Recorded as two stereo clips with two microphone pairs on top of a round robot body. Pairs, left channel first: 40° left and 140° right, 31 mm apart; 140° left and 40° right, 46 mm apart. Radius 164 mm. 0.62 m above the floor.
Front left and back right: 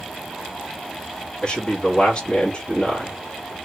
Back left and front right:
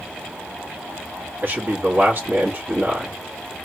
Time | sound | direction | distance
1.4 | a man speaking | 15° right | 1.5 m